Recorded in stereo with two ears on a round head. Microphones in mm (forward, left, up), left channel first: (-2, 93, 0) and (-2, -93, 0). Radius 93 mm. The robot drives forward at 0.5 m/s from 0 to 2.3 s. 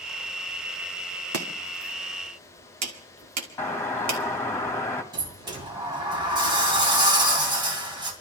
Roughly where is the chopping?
Right.